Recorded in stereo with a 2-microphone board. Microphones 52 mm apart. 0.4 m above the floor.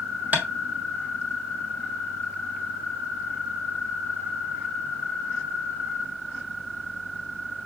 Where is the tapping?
30° right (ahead or behind), 1.3 m.